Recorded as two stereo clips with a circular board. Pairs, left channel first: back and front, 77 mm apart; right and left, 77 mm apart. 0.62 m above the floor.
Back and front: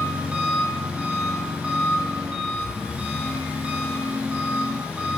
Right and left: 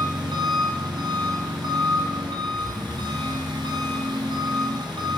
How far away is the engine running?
About 3.5 m.